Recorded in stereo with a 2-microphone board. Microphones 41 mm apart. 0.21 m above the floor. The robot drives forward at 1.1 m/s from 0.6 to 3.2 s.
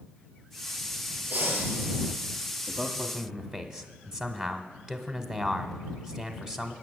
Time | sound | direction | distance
1.3 | breathing | 45° right (ahead or behind) | 4 m
2.7 | a man speaking | 15° right (ahead or behind) | 1.0 m